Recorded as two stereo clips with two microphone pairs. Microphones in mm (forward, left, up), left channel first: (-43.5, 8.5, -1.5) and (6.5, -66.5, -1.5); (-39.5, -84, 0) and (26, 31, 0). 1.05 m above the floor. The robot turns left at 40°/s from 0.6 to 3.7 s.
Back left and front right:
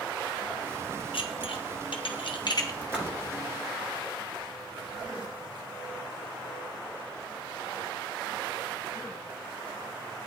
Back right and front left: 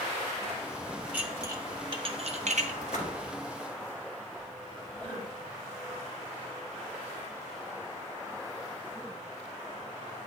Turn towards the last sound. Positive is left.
turn(degrees=-165)